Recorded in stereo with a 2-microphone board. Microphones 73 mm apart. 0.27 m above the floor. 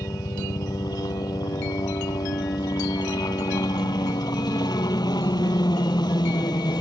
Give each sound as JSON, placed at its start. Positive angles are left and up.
{"t": 0.0, "sound": "a helicopter", "side_deg": 60}